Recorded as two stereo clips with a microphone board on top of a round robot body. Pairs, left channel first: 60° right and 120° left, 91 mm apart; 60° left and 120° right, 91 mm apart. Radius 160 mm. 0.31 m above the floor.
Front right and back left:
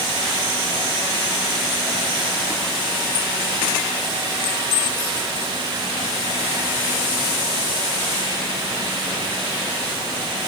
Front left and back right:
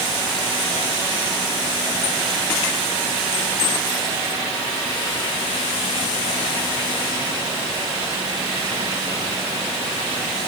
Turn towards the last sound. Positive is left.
No sound to turn to.